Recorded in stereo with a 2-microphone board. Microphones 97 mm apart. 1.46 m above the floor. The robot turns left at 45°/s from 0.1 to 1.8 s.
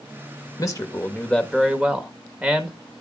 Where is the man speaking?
40° left, 1.6 m; by 2.8 s 15° right, 1.6 m.